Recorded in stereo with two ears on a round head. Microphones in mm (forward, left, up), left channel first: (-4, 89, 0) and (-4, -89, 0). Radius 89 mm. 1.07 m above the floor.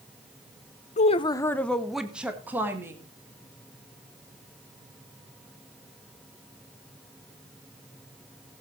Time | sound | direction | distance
1.0 | a woman speaking | 35° left (ahead or behind) | 0.7 m